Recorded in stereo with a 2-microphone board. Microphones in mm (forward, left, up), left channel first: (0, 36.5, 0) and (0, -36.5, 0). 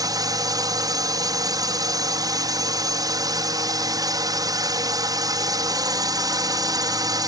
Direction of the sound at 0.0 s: 60° right (ahead or behind).